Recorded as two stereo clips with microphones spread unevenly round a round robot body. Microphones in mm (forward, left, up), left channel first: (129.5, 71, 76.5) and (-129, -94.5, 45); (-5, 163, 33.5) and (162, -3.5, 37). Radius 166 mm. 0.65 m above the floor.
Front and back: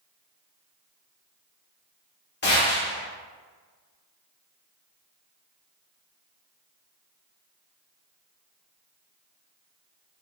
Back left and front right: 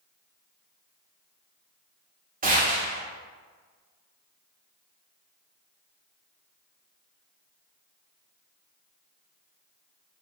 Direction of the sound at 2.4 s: 15° right.